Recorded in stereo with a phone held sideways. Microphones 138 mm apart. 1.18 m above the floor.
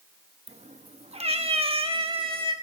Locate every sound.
0.5 s a cat meowing: 50° right (ahead or behind), 0.6 m; by 2.5 s 40° right (ahead or behind), 1.6 m